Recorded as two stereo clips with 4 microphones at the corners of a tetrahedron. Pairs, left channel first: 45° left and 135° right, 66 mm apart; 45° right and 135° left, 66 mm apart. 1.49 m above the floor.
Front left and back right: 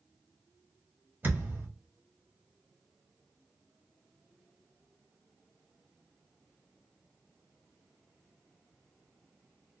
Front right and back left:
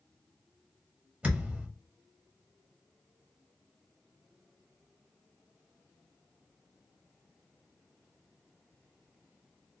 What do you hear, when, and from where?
1.2 s a thud: 170° right, 0.9 m